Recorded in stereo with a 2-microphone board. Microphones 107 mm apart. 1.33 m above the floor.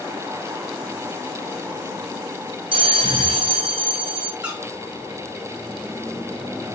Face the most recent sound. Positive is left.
turn(degrees=-10)  # may be behind; listen again after turning